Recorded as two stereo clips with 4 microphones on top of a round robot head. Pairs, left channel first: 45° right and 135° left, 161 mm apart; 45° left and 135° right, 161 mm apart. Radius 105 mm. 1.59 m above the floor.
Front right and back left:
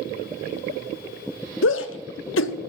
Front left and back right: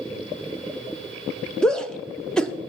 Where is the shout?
40° right, 0.6 m.